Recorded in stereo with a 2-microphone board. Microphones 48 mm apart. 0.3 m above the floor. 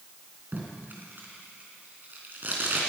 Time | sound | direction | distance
0.5 | tape being pulled | 40° right (ahead or behind) | 3 m